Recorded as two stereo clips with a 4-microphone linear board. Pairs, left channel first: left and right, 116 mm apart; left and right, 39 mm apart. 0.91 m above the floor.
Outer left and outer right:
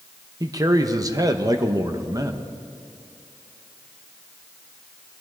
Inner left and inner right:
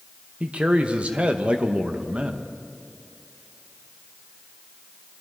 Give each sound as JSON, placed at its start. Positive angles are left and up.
{"t": 0.4, "sound": "a man speaking", "side_deg": -30, "distance_m": 0.9}